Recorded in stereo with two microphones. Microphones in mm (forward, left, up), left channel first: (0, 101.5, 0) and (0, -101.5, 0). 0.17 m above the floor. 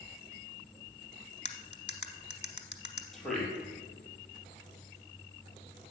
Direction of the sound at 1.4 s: 35° left (ahead or behind).